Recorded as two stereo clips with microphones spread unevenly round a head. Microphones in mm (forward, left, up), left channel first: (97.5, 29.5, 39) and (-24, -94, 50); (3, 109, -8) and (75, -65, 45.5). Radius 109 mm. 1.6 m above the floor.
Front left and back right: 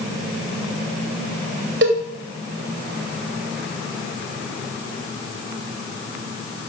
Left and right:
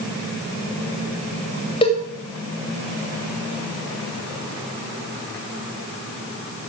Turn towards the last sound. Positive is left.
turn(degrees=-175)